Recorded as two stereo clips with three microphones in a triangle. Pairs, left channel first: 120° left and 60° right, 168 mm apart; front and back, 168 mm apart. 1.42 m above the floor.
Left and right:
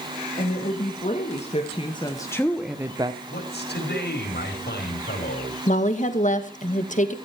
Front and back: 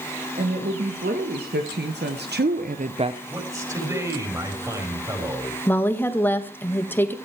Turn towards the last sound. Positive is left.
turn(degrees=80)